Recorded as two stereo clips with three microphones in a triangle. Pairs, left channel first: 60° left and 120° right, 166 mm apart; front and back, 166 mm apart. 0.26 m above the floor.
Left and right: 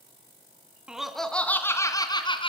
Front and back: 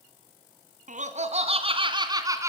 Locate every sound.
0.9 s laughter: 155° left, 3 m; by 2.5 s 110° left, 3 m